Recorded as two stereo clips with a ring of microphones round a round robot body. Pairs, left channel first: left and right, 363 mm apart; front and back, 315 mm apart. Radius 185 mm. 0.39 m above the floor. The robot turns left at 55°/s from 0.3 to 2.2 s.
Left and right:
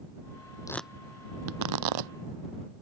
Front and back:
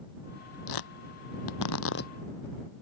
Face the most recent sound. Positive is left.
turn(degrees=-75)